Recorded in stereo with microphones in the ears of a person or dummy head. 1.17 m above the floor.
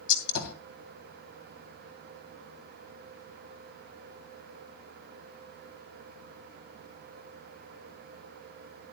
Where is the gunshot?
70° left (ahead or behind), 2.5 m.